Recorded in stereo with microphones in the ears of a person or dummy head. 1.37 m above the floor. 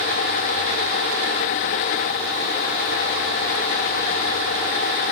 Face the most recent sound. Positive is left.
No sound to turn to.